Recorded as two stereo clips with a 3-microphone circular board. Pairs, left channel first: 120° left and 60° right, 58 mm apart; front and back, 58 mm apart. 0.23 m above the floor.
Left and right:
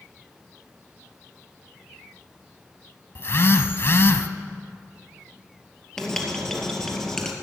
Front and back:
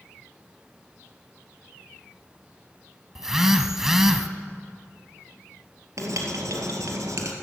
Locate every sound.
3.1 s a phone buzzing: 100° left, 0.7 m
6.0 s writing: 160° right, 2 m